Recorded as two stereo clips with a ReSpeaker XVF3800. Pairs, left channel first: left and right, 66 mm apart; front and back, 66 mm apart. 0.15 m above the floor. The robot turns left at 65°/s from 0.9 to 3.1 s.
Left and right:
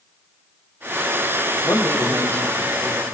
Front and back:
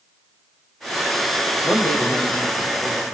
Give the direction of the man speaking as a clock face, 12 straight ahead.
10 o'clock.